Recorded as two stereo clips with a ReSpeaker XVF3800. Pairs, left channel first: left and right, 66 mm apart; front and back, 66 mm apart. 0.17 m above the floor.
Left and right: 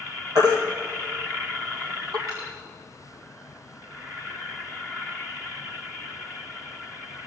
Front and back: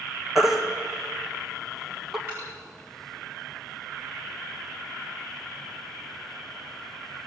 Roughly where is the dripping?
Behind right.